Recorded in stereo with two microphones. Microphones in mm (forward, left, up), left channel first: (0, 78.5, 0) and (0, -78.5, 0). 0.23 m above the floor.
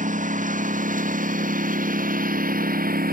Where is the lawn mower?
55° right (ahead or behind); by 3.1 s 65° right (ahead or behind).